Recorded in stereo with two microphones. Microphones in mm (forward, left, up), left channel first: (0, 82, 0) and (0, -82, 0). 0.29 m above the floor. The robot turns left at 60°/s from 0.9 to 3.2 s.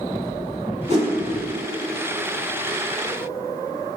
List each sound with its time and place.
0.9 s a whoosh: 45° right (ahead or behind), 0.9 m; by 1.1 s 30° right (ahead or behind), 0.9 m